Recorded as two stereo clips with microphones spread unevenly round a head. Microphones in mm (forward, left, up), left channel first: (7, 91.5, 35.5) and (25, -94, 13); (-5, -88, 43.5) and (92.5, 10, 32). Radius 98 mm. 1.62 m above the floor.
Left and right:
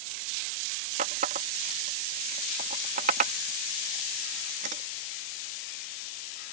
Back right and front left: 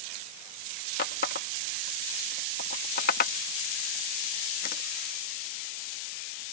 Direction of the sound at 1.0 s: 140° right.